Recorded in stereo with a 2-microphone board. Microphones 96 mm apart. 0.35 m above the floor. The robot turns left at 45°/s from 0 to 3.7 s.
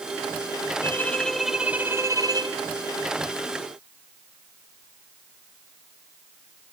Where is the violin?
25° left, 2 m; by 2.6 s 50° right, 2 m.